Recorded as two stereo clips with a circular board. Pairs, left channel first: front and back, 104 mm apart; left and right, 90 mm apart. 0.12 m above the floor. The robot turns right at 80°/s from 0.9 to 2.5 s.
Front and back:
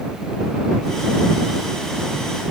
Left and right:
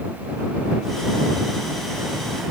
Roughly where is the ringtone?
No ringtone in this recording.